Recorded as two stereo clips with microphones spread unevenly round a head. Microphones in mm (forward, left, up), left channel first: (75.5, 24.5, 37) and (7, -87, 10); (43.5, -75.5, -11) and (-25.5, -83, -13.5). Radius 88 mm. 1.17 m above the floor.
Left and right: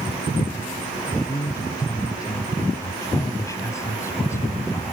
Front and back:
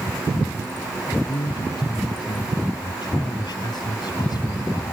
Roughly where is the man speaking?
Ahead.